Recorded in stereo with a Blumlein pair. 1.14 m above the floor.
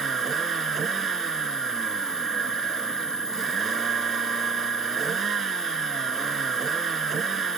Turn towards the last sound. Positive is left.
turn(degrees=-20)